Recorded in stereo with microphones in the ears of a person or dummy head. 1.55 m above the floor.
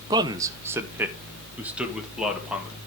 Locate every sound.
0.1 s a man speaking: 25° right (ahead or behind), 0.5 m; by 2.8 s 5° right (ahead or behind), 1.9 m